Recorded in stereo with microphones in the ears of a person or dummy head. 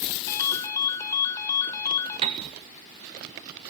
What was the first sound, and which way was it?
A ringtone, 20° left (ahead or behind).